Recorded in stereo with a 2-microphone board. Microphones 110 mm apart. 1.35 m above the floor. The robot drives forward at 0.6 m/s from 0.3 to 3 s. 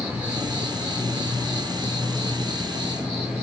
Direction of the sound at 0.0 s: 15° right (ahead or behind).